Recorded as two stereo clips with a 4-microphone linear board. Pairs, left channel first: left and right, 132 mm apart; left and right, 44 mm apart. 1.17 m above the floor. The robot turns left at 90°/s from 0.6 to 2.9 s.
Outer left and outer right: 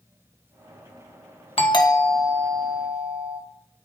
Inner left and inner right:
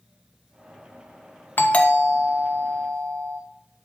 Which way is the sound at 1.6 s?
55° left.